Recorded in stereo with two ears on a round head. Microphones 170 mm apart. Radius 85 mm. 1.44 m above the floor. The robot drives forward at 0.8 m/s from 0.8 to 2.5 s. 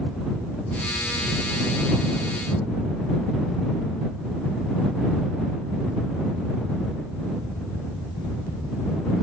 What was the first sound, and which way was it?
Only background noise.